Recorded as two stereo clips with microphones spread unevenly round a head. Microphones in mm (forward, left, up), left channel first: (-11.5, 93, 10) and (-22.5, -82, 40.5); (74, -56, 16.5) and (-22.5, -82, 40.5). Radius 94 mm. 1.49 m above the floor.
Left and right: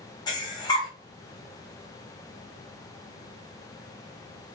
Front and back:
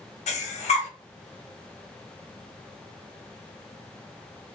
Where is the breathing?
15° left, 0.6 m.